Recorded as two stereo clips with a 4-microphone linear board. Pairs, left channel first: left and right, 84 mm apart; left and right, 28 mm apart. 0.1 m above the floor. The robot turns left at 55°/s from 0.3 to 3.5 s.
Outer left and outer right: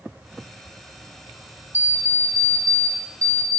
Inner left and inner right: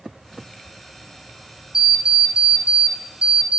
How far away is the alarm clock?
About 1.0 m.